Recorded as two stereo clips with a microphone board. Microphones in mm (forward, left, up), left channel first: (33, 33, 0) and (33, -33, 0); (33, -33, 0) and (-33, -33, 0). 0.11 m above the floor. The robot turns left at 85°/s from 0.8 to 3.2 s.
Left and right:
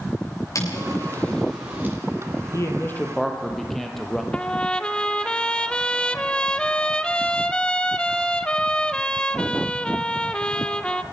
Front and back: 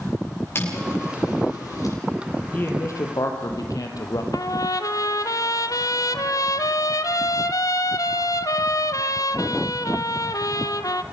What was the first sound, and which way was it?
Footsteps, 55° left.